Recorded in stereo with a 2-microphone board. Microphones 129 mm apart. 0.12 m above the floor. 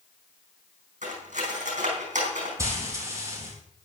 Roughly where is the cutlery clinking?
Right.